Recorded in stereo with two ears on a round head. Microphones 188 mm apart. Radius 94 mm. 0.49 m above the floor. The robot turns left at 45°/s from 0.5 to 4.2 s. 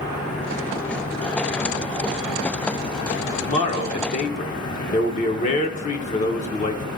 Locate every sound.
3.4 s a man speaking: 125° left, 1.0 m; by 6.8 s 85° left, 1.0 m